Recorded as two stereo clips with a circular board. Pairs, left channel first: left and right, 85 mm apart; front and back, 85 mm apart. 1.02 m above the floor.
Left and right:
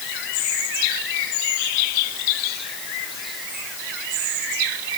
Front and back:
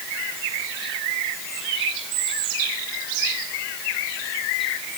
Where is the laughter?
I don't hear laughter.